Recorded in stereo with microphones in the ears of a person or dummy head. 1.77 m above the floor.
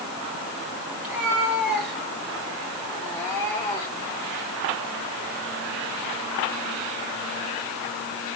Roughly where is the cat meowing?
Centre.